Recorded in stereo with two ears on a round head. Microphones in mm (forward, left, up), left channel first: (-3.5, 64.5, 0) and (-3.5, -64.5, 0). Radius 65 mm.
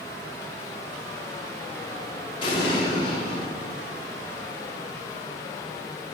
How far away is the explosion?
About 1.8 m.